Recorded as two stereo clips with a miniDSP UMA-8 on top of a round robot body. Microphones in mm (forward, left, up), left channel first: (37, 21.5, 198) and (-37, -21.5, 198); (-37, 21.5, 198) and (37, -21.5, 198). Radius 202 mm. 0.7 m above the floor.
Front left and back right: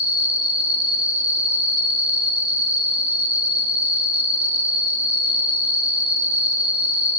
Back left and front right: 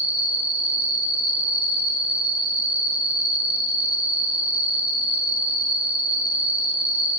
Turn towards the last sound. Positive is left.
turn(degrees=-105)